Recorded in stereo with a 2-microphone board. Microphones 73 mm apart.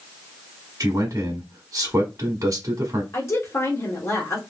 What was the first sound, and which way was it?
A man speaking, 45° right (ahead or behind).